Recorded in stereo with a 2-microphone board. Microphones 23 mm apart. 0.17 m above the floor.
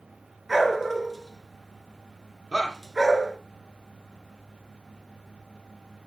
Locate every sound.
0.5 s a dog barking: centre (ahead or behind), 1.1 m
2.5 s a shout: 15° left (ahead or behind), 1.3 m